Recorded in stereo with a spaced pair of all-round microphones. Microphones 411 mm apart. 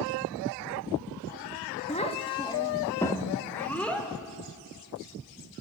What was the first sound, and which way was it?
A child speaking, 15° left (ahead or behind).